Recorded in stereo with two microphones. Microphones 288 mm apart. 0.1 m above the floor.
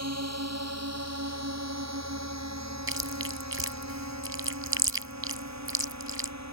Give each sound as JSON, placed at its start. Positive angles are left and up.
{"t": 0.0, "sound": "a drone", "side_deg": -60}
{"t": 2.9, "sound": "chewing", "side_deg": -50}